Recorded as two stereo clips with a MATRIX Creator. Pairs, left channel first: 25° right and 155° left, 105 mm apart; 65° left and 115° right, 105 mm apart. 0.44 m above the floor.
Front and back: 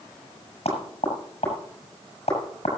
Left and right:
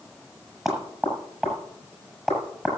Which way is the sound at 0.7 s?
20° right.